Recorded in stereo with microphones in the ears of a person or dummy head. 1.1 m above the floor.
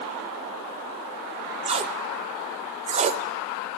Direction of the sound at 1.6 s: 35° right (ahead or behind).